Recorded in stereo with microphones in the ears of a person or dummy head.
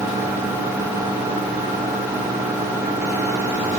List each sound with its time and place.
Only background noise.